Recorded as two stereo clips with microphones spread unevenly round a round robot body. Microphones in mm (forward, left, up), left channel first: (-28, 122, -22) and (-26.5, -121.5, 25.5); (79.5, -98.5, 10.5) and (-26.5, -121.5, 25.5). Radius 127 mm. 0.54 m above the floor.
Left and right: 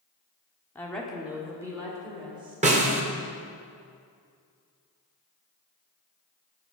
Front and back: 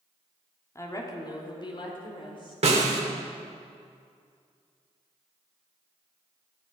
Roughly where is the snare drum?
Behind right.